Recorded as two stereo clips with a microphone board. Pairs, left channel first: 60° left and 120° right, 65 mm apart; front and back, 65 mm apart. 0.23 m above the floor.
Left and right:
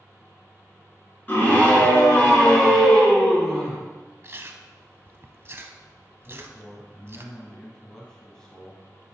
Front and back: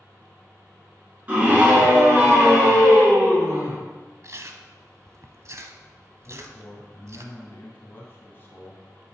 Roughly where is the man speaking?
Ahead.